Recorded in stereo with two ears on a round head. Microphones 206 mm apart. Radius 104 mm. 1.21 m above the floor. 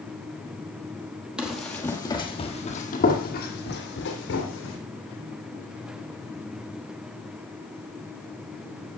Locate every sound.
1.4 s running footsteps: 5° right (ahead or behind), 1.8 m; by 4.8 s 55° left (ahead or behind), 3 m